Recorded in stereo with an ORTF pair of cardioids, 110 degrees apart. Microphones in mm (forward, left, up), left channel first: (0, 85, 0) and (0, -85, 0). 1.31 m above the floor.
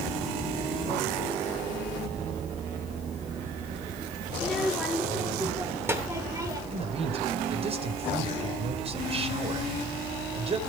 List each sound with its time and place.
4.3 s a child speaking: straight ahead, 3 m; by 6.6 s 20° right, 4.5 m
6.7 s a man speaking: 35° right, 4.5 m